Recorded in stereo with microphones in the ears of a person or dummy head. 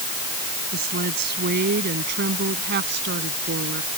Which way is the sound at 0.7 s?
50° right (ahead or behind).